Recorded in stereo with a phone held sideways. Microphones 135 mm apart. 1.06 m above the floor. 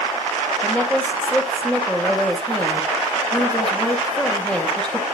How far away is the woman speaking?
About 2.5 m.